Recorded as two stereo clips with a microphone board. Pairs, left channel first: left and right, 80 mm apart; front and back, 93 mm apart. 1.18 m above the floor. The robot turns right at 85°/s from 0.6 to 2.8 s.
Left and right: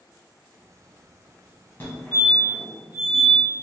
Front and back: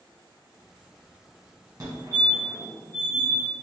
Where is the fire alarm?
140° left, 1.3 m; by 3.4 s 135° right, 1.3 m.